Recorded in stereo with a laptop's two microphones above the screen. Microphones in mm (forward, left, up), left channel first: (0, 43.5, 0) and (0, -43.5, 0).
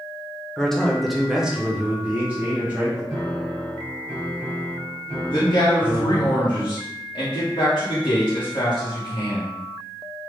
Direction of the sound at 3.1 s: Centre (ahead or behind).